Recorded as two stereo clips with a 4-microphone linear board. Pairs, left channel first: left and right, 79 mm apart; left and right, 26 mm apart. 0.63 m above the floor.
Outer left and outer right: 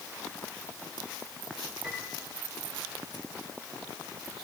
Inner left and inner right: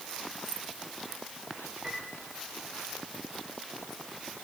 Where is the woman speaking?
No woman speaking in this recording.